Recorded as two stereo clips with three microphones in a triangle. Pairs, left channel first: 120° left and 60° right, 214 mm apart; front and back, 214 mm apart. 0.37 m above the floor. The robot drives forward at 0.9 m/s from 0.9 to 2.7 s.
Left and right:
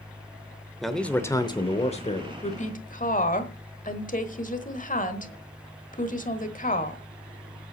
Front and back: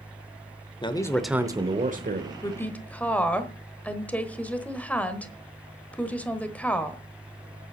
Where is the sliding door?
No sliding door in this recording.